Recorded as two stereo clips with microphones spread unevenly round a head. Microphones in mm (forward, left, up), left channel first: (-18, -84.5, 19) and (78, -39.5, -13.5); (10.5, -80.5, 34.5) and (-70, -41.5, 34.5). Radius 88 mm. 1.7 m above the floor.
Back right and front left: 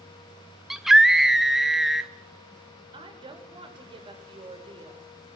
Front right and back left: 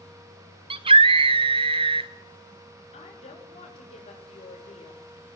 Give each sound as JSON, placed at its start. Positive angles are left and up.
{"t": 0.7, "sound": "a scream", "azimuth_deg": 125, "distance_m": 0.7}
{"t": 2.9, "sound": "a woman speaking", "azimuth_deg": -15, "distance_m": 6.5}